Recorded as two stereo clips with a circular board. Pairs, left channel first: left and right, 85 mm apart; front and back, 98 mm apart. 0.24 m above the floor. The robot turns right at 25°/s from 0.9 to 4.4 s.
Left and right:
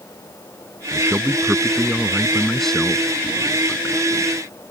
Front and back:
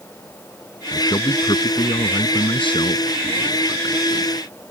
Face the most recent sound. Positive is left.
turn(degrees=50)